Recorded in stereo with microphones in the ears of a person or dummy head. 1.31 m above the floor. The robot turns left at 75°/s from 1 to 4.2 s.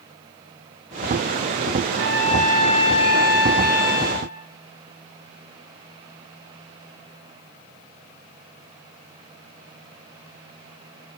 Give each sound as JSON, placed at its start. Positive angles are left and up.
{"t": 1.9, "sound": "a trumpet", "azimuth_deg": -150, "distance_m": 6.0}